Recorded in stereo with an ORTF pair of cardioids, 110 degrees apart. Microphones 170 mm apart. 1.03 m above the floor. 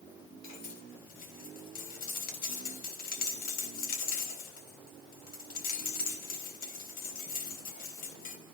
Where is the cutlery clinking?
60° left, 4 m.